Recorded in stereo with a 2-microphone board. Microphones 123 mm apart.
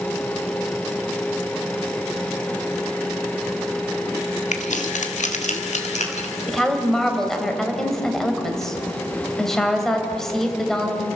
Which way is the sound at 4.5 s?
70° left (ahead or behind).